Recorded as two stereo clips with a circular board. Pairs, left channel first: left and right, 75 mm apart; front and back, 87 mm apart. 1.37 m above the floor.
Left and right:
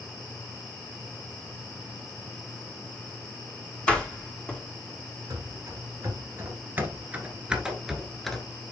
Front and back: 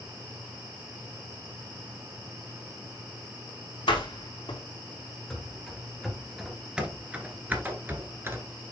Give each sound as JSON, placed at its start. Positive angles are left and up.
{"t": 3.9, "sound": "a door slam", "azimuth_deg": 15, "distance_m": 2.0}
{"t": 5.3, "sound": "running footsteps", "azimuth_deg": -85, "distance_m": 1.9}